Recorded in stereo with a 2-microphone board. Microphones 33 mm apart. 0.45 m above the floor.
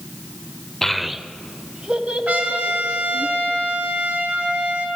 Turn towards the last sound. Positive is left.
turn(degrees=-65)  # may be behind; listen again after turning